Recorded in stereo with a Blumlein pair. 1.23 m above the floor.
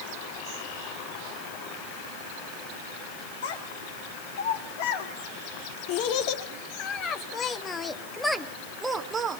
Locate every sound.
3.4 s a child speaking: 60° left, 3 m; by 9.4 s 25° right, 1.3 m